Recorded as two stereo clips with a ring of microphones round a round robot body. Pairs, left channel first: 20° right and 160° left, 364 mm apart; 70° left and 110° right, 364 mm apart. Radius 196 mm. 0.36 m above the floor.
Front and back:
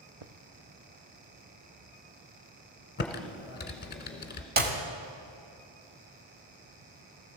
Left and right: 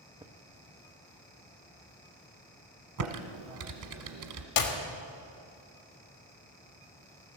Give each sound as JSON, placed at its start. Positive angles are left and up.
{"t": 0.2, "sound": "footsteps", "azimuth_deg": 170, "distance_m": 0.8}
{"t": 3.0, "sound": "typing on a keyboard", "azimuth_deg": -85, "distance_m": 1.3}
{"t": 4.6, "sound": "a clap", "azimuth_deg": 95, "distance_m": 1.6}